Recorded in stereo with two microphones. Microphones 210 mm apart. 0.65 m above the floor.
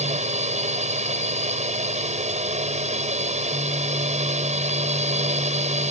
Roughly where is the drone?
Right.